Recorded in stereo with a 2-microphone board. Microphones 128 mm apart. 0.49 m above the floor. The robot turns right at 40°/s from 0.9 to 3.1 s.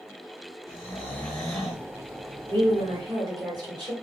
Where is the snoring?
150° left, 1.4 m; by 1.9 s 170° right, 1.4 m.